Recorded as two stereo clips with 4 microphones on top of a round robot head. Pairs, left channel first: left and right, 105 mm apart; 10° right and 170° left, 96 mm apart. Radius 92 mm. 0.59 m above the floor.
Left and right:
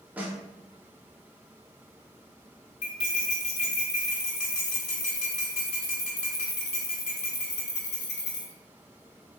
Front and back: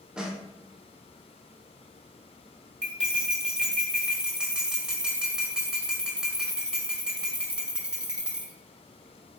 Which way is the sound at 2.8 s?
90° left.